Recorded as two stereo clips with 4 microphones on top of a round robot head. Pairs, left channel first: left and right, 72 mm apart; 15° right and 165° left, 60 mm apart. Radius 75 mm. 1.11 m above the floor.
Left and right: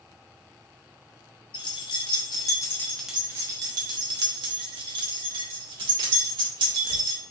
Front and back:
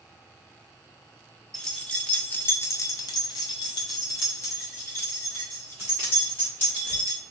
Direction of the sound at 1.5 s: 65° left.